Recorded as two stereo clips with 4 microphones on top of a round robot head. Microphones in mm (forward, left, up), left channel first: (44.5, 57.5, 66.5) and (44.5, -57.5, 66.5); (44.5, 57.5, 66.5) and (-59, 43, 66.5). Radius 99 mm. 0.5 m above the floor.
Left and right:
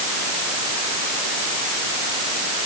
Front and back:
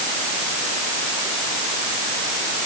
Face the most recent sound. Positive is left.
No sound to turn to.